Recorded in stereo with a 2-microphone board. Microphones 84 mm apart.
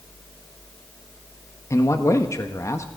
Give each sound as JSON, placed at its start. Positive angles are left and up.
{"t": 1.7, "sound": "a man speaking", "side_deg": 40, "distance_m": 1.3}